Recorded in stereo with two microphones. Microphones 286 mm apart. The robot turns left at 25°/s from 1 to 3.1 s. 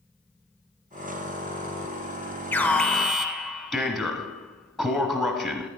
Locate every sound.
2.5 s an alarm: 10° left (ahead or behind), 0.8 m; by 5.7 s centre (ahead or behind), 0.8 m